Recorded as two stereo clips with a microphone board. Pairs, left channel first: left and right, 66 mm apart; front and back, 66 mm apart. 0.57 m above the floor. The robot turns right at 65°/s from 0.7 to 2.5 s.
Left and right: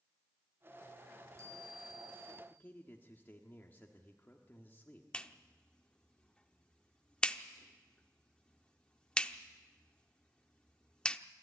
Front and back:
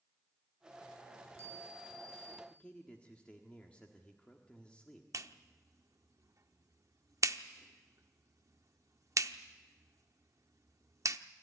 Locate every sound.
1.1 s a chime: 150° right, 4.5 m; by 2.4 s 65° right, 4.5 m
2.5 s a man speaking: 60° left, 1.4 m
5.1 s a clap: 165° left, 0.7 m